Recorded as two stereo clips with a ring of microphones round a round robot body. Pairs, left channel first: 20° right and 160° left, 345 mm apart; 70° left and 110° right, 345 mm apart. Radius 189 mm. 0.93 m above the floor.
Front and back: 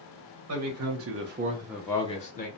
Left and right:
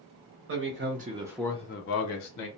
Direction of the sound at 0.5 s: 160° right.